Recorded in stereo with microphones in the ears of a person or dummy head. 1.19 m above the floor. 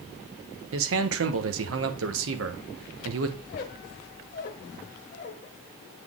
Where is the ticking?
No ticking in this recording.